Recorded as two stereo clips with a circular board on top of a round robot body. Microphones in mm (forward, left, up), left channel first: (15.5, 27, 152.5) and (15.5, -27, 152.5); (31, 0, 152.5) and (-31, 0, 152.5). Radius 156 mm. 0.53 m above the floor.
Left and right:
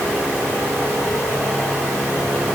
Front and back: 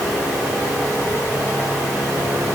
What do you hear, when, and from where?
Only background noise.